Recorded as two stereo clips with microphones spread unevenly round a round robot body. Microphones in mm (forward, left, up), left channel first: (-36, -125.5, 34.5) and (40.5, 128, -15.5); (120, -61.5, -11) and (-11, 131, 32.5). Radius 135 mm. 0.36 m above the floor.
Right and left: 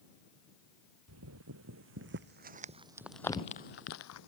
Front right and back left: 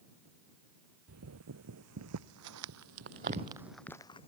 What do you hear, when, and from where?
1.1 s footsteps: 110° left; by 4.3 s 130° right